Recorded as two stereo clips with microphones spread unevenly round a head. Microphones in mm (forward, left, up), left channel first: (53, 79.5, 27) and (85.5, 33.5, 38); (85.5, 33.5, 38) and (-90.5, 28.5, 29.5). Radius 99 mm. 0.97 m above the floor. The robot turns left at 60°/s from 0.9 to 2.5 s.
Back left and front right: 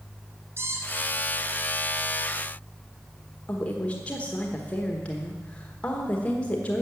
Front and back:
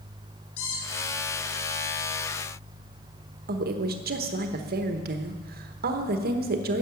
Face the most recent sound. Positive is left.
turn(degrees=-175)